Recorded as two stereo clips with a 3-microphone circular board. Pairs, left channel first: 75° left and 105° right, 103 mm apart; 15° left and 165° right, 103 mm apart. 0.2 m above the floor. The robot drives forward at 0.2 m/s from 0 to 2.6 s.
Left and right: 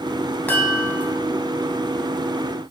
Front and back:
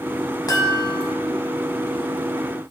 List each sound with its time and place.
0.5 s a chime: 10° left, 0.6 m; by 1.1 s 15° left, 0.5 m